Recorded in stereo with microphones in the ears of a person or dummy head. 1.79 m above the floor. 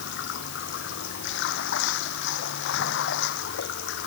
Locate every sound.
0.0 s running water: 75° left (ahead or behind)